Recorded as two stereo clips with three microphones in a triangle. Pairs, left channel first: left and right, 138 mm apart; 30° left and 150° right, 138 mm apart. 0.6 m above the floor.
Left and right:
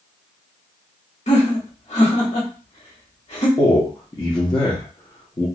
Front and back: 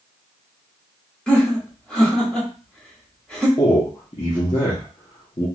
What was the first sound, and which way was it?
Laughter, 115° left.